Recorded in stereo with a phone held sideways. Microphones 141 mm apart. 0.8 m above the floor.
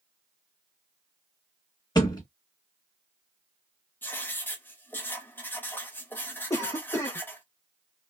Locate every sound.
1.9 s a thud: 30° left (ahead or behind), 1.2 m
4.0 s writing: 15° left (ahead or behind), 0.6 m
6.5 s a cough: 25° left (ahead or behind), 0.5 m